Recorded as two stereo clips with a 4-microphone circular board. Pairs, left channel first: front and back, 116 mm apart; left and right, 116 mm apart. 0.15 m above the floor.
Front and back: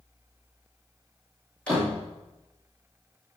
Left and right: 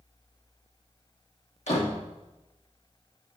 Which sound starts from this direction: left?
A door slam, at 1.7 s.